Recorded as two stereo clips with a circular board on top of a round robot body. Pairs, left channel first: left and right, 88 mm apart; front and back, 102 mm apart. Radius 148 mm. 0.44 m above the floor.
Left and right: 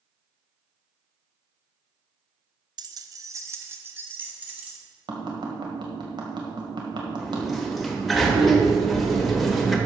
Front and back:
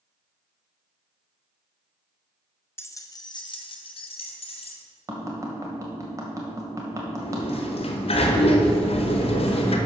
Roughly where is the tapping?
Behind right.